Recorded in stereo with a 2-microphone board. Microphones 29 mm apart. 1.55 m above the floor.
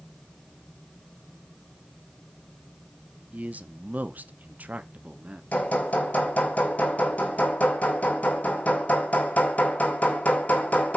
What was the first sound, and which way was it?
A man speaking, 60° right (ahead or behind).